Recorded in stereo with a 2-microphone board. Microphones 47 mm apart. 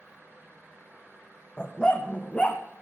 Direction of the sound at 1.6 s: 15° left (ahead or behind).